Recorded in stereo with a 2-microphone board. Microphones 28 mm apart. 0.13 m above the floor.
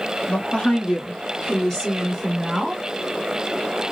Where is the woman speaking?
45° left (ahead or behind), 2.5 m; by 2.8 s 10° right (ahead or behind), 1.7 m.